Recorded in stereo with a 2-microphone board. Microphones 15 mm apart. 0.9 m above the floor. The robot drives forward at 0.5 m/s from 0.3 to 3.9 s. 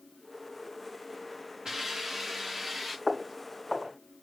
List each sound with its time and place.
1.6 s a hiss: 40° right (ahead or behind), 1.5 m; by 3.0 s 30° right (ahead or behind), 1.9 m
3.1 s footsteps: 45° right (ahead or behind), 3.5 m; by 3.9 s 40° right (ahead or behind), 4 m